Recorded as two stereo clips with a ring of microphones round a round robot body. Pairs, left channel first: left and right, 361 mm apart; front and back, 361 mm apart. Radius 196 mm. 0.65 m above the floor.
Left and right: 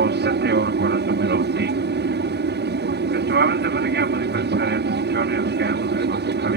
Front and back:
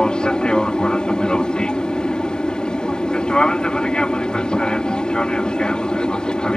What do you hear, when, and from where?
0.0 s an aircraft: 85° right